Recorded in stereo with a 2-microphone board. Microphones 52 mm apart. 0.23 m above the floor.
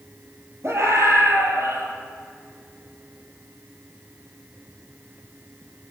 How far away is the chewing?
No chewing in this recording.